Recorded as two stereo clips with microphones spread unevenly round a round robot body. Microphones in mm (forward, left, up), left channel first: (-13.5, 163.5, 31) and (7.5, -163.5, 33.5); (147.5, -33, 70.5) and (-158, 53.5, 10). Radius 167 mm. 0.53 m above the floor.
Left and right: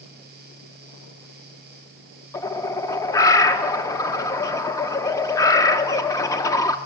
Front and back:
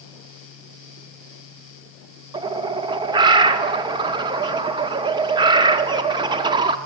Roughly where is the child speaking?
No child speaking in this recording.